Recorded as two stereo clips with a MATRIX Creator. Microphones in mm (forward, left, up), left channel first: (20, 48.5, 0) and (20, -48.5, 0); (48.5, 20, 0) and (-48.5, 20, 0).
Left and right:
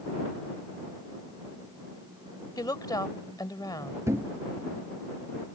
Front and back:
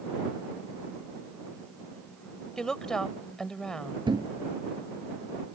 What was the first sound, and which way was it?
A woman speaking, 80° left.